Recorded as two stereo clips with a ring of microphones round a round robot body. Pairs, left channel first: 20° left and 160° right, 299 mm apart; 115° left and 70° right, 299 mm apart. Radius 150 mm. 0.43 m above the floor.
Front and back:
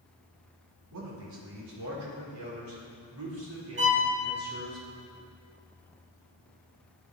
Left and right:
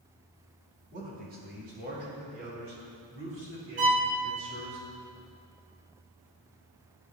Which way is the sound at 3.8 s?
110° right.